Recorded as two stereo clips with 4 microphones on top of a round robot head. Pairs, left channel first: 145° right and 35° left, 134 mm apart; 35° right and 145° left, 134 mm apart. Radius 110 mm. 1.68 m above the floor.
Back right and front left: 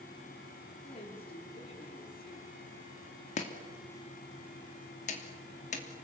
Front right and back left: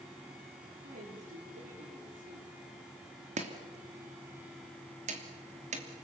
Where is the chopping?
Straight behind, 3 m.